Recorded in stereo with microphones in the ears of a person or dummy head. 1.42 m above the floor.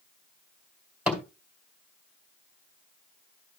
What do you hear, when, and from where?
1.1 s a thud: 5° right (ahead or behind), 2 m